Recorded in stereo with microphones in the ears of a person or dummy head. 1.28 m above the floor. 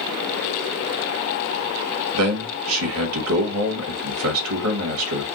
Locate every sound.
2.1 s a man speaking: 75° right (ahead or behind), 1.3 m